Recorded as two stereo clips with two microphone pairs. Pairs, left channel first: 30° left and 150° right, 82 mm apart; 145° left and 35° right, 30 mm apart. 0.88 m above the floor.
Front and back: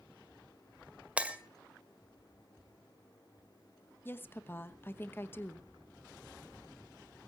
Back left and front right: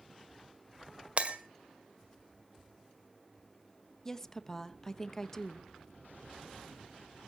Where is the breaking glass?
75° right, 1.7 m.